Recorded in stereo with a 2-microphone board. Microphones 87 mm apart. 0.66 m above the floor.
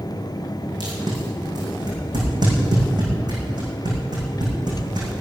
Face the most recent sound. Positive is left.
turn(degrees=-50)  # may be behind; listen again after turning